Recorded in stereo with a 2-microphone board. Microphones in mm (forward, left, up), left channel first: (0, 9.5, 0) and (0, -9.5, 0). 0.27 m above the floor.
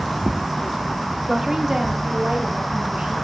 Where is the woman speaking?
Centre (ahead or behind), 1.1 m; by 3.1 s 65° right (ahead or behind), 2.5 m.